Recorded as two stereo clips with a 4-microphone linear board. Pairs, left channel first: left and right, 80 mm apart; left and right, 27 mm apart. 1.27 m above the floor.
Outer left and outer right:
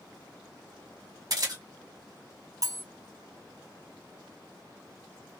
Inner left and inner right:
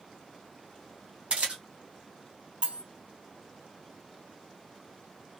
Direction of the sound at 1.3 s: 50° right (ahead or behind).